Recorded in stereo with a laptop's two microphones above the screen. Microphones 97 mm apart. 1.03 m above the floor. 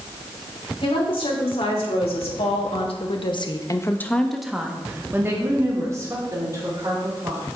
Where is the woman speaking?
70° left (ahead or behind), 3.5 m; by 7.4 s 40° right (ahead or behind), 4 m.